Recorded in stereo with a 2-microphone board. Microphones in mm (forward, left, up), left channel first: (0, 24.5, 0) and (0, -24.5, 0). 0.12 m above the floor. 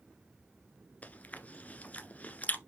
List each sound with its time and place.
1.0 s chewing: 30° left (ahead or behind), 1.2 m